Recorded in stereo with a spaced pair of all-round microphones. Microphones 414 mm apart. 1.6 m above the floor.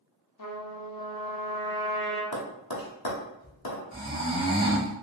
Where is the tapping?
60° left (ahead or behind), 0.7 m.